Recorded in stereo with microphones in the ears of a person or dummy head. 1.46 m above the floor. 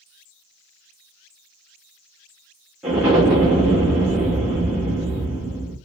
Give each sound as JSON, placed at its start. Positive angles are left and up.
{"t": 2.8, "sound": "an explosion", "side_deg": -10, "distance_m": 0.9}